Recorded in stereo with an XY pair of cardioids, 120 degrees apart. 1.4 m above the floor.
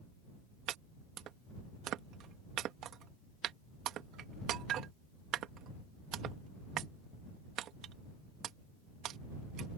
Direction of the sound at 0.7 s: 65° right.